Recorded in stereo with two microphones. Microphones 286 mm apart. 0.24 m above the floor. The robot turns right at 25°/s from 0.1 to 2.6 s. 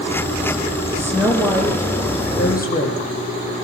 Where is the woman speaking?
10° right, 7.5 m; by 3.2 s 30° left, 7.5 m.